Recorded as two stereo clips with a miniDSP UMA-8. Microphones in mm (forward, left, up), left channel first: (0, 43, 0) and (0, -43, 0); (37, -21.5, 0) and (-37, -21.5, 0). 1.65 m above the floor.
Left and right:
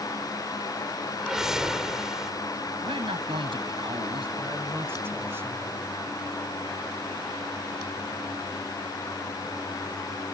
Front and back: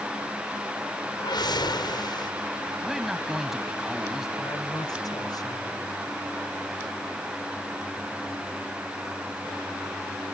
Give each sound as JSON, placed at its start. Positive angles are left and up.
{"t": 1.2, "sound": "a whoosh", "azimuth_deg": -5}
{"t": 2.8, "sound": "a man speaking", "azimuth_deg": -95}
{"t": 4.4, "sound": "a man speaking", "azimuth_deg": -25}